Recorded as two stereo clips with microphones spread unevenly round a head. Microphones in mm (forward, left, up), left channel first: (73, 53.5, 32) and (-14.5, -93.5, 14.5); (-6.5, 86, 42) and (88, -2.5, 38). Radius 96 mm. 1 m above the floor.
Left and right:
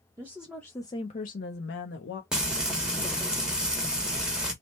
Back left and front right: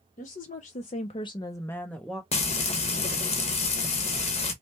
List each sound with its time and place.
0.2 s a woman speaking: 165° left, 0.7 m; by 2.2 s 50° left, 0.9 m
2.3 s frying: 160° left, 1.0 m